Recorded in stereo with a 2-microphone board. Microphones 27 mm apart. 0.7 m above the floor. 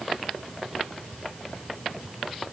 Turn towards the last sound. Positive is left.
No sound to turn to.